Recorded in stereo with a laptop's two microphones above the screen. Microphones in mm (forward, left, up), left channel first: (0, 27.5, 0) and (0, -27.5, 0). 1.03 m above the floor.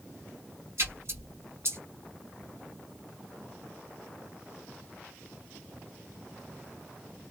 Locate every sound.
0.8 s a splash: 55° right (ahead or behind), 2 m